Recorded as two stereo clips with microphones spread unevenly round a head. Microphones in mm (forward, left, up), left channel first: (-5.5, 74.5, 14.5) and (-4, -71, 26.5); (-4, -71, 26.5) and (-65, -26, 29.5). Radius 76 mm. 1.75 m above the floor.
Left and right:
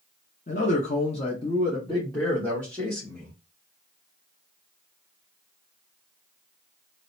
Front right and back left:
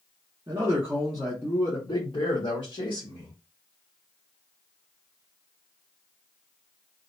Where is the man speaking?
105° left, 0.7 m; by 3.4 s 5° left, 1.6 m.